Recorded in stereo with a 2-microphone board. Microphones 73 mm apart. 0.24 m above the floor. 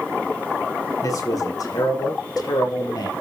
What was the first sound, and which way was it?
A man speaking, 50° left (ahead or behind).